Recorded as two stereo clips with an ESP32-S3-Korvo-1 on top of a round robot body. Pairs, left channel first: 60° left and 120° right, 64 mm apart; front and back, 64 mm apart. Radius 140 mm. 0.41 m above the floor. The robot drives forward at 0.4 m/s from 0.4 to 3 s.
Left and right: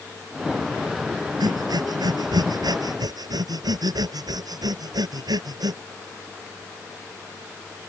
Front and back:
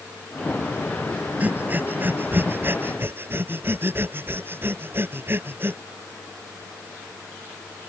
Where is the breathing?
115° right; by 5.8 s 125° right.